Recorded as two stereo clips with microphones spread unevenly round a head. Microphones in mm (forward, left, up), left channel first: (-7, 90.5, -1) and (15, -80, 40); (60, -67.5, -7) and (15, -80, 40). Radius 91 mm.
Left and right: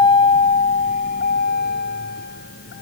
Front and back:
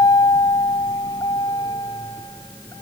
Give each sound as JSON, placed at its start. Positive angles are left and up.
{"t": 0.0, "sound": "a vehicle", "azimuth_deg": 25}